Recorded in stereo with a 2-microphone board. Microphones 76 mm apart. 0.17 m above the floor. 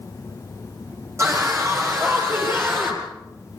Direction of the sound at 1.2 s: 35° right (ahead or behind).